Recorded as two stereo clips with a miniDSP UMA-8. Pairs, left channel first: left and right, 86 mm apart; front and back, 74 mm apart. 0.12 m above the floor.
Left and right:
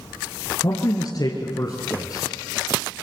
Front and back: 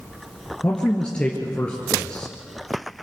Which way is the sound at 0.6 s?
75° left.